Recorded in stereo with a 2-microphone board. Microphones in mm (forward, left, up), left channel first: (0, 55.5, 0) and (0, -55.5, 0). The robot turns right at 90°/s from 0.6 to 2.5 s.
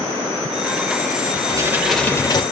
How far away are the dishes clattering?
About 2.5 m.